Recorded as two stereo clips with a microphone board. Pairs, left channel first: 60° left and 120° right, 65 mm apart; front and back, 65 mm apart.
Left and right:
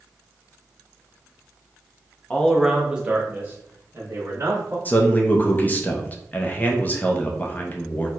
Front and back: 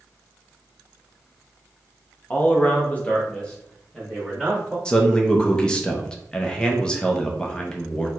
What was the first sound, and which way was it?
A man speaking, 15° left.